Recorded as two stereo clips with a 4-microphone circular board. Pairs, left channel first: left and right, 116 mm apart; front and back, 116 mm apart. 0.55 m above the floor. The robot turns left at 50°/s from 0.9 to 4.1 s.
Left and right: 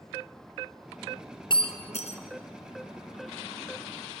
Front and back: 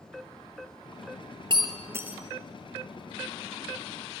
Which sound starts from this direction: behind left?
Breaking glass, at 1.5 s.